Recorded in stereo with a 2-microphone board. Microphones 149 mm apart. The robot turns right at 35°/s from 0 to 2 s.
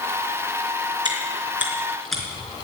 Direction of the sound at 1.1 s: 30° right (ahead or behind).